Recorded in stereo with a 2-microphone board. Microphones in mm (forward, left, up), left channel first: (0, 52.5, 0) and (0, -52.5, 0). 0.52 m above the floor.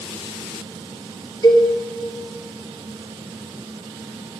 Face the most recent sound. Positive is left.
turn(degrees=30)  # may be behind; listen again after turning